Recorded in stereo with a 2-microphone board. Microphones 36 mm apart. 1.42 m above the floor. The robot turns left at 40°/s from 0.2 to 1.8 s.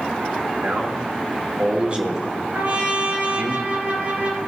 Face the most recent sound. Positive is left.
turn(degrees=-65)  # may be behind; listen again after turning